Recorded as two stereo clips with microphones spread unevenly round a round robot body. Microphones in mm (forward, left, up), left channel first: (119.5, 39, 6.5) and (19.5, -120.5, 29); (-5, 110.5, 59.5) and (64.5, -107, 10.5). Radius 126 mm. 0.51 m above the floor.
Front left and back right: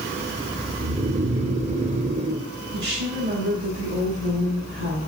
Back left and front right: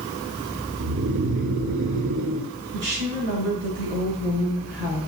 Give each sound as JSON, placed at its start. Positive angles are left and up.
{"t": 0.8, "sound": "snoring", "azimuth_deg": -65, "distance_m": 1.0}
{"t": 2.7, "sound": "a woman speaking", "azimuth_deg": -110, "distance_m": 4.5}